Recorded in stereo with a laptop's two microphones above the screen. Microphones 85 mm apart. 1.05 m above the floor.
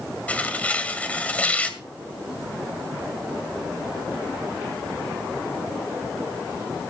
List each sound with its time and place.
0.3 s tearing paper: 15° left (ahead or behind), 2 m